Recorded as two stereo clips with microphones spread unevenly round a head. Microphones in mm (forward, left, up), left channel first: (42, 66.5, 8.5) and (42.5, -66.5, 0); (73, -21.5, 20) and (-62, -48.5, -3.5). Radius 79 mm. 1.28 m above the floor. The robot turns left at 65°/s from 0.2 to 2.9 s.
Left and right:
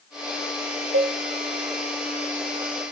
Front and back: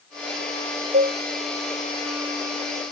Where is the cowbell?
115° right, 0.8 m; by 1.1 s 130° right, 0.8 m.